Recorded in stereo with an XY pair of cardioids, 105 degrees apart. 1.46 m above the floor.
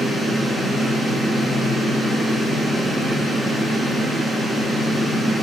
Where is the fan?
5° left, 2.5 m.